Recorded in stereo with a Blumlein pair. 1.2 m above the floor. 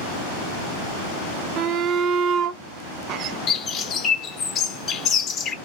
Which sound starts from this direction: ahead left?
A bird, at 3.5 s.